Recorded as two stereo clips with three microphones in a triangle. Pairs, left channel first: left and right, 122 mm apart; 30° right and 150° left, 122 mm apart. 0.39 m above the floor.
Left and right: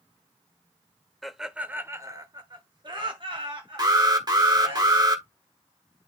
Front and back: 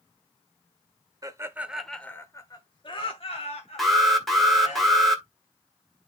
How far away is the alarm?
About 1.8 m.